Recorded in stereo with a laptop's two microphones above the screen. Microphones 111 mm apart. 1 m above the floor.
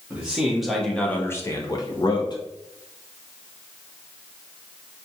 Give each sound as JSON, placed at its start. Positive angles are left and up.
{"t": 0.1, "sound": "a man speaking", "side_deg": -10, "distance_m": 0.9}